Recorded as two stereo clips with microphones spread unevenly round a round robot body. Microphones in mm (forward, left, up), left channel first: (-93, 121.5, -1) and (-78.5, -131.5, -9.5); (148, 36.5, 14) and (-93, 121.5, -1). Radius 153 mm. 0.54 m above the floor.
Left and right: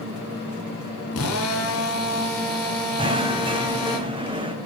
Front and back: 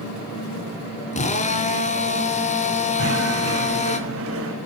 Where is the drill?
45° left, 4 m.